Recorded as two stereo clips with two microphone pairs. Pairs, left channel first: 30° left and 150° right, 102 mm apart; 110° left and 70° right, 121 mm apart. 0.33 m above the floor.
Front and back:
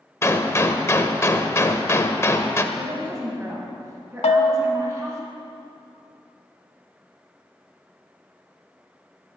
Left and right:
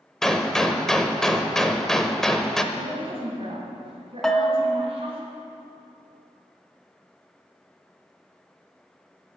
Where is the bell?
25° left, 0.5 m.